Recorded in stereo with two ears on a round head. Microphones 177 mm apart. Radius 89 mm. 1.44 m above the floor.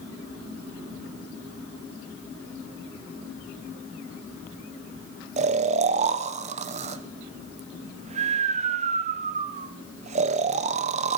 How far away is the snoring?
About 0.5 m.